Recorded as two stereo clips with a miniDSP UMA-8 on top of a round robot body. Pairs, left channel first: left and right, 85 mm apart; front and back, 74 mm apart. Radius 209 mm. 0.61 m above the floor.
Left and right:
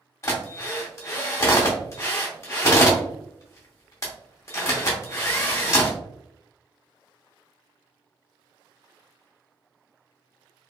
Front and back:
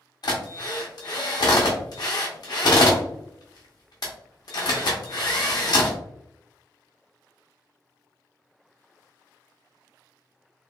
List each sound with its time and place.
0.2 s a drill: 30° left, 0.6 m